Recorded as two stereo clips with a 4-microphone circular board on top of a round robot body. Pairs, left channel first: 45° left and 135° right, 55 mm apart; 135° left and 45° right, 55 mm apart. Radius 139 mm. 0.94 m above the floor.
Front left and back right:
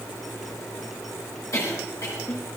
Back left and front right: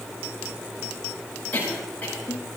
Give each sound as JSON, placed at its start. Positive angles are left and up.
{"t": 1.5, "sound": "a cough", "azimuth_deg": 75, "distance_m": 9.5}